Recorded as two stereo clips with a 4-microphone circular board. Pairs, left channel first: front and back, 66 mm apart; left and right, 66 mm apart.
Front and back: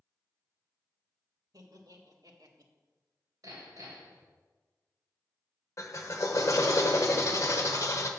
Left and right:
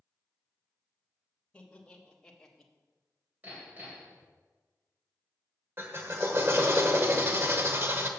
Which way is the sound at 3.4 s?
155° right.